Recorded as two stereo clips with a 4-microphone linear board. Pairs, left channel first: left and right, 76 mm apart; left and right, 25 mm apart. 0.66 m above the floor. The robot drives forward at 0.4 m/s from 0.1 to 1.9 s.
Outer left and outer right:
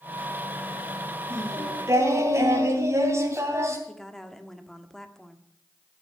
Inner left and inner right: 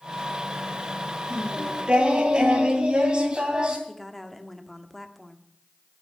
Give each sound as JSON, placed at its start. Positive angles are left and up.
{"t": 1.3, "sound": "singing", "side_deg": -35, "distance_m": 3.0}
{"t": 3.9, "sound": "a woman speaking", "side_deg": 5, "distance_m": 1.3}